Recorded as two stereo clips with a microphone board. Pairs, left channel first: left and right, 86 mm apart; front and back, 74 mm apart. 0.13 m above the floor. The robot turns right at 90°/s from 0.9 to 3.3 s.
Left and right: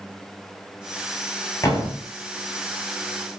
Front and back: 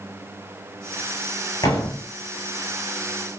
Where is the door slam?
30° left, 6.5 m; by 2.1 s 70° left, 6.5 m.